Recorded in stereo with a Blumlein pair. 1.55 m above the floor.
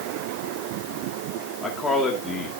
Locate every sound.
1.6 s a man speaking: 10° left, 2.5 m